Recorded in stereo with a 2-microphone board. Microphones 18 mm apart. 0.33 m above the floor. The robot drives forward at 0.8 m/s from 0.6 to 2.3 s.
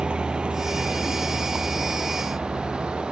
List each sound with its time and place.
0.0 s a vehicle: 65° right (ahead or behind); by 3.1 s 85° right